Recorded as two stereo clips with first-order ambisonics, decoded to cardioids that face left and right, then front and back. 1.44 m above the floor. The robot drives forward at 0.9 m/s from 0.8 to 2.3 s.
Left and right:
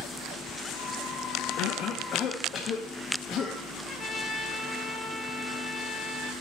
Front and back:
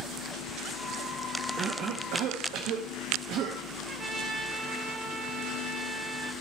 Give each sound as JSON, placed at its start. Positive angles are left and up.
{"t": 1.6, "sound": "a cough", "azimuth_deg": 115, "distance_m": 0.5}
{"t": 3.9, "sound": "a trumpet", "azimuth_deg": 150, "distance_m": 0.9}